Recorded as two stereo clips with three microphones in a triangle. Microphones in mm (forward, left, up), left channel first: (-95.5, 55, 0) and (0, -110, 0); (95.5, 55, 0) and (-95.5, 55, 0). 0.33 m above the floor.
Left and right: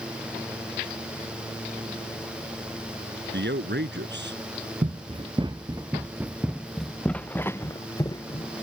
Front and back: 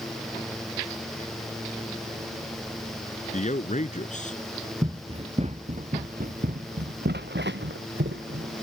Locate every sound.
3.3 s a man speaking: 45° right
4.8 s running footsteps: 115° right; by 8.6 s 175° right